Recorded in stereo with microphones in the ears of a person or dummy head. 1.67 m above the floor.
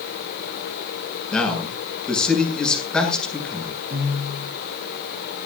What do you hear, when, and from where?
1.3 s a man speaking: 5° left (ahead or behind), 7.5 m
3.9 s a piano: 50° right (ahead or behind), 10 m